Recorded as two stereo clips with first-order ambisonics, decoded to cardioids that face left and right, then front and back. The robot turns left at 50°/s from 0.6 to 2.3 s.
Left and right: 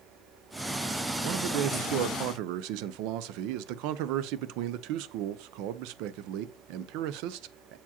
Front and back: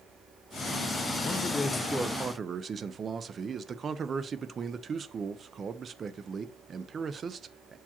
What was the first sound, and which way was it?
A man speaking, 60° right.